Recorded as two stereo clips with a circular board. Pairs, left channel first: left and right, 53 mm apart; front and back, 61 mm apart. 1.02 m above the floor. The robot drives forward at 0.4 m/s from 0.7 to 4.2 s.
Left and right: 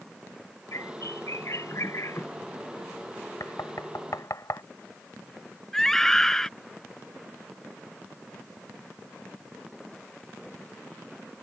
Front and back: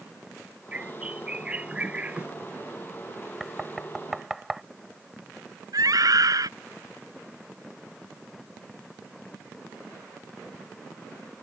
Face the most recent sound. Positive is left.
turn(degrees=170)